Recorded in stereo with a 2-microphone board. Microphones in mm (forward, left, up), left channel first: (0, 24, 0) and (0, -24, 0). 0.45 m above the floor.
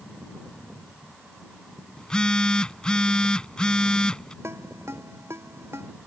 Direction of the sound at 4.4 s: 75° right (ahead or behind).